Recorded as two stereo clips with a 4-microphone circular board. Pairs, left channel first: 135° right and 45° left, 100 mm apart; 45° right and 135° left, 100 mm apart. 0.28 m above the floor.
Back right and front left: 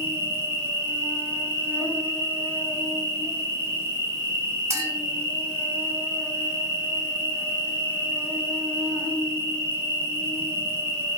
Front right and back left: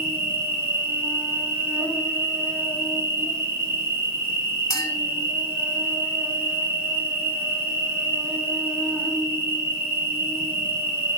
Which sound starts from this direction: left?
An insect, at 0.0 s.